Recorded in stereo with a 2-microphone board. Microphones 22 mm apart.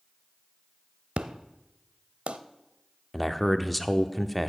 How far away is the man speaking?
About 0.8 m.